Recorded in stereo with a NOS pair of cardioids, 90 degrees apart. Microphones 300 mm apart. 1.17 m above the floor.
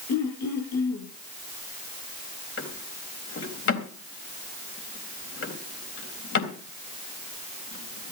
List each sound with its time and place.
0.1 s throat clearing: 60° left, 8.5 m
2.6 s a drawer: 45° left, 3.5 m